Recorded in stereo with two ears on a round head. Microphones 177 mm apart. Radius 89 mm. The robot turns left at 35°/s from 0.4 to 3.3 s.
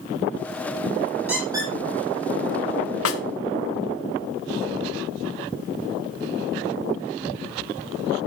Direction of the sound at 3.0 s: 75° left (ahead or behind).